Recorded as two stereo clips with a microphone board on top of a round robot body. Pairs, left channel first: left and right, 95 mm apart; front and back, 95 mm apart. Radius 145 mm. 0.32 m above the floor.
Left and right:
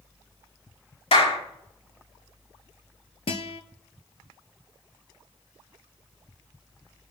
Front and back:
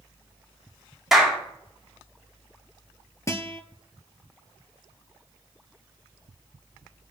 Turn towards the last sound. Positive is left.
turn(degrees=60)